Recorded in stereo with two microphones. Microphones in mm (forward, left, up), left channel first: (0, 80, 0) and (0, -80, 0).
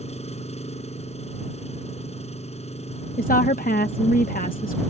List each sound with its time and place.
0.0 s an engine running: 45° left (ahead or behind)
3.2 s a woman speaking: 60° left (ahead or behind)